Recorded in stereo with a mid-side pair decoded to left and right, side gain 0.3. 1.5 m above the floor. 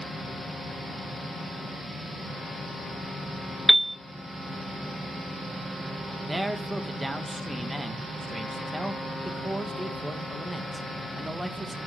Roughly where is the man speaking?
Ahead.